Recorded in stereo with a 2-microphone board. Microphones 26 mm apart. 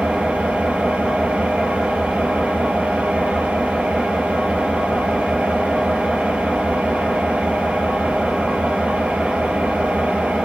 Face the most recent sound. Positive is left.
turn(degrees=-75)  # may be behind; listen again after turning